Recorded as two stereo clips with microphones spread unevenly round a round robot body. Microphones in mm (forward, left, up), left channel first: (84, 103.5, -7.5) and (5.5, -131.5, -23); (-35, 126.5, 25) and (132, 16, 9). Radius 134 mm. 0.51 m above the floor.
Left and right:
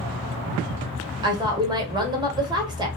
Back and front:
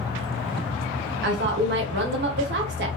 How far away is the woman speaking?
About 1.4 m.